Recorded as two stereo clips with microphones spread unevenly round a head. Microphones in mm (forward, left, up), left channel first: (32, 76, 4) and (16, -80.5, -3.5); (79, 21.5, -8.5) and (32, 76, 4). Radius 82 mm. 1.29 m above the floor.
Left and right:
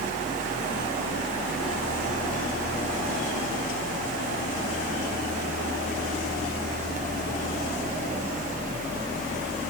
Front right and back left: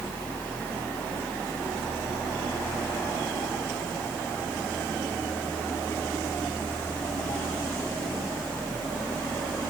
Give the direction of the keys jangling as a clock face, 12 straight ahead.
No keys jangling in this recording.